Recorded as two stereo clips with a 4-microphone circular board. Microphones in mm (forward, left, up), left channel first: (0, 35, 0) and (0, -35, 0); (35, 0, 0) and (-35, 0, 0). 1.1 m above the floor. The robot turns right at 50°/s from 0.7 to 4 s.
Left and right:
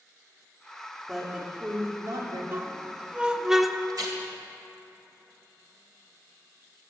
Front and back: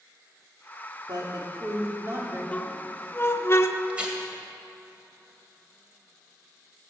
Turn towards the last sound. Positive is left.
turn(degrees=-105)